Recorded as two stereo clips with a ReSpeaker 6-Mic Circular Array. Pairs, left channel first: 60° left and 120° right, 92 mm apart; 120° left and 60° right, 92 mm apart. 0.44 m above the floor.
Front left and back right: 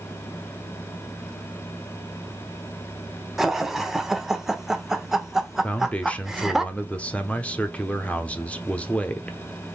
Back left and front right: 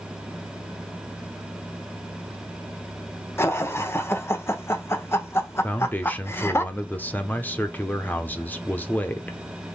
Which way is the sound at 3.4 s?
155° left.